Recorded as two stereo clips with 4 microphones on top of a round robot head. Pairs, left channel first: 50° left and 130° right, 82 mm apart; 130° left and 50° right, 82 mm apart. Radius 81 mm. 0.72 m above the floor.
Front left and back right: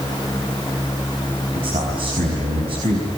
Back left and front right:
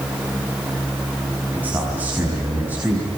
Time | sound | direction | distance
1.5 | a man speaking | 120° right | 5.5 m